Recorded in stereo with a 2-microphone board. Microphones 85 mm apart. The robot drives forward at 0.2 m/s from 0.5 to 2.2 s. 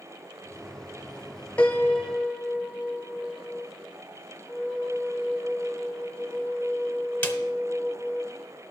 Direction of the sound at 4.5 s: 15° left (ahead or behind).